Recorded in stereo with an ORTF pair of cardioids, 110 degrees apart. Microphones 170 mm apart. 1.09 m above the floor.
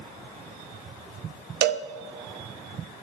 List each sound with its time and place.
1.6 s a cowbell: 65° right, 0.7 m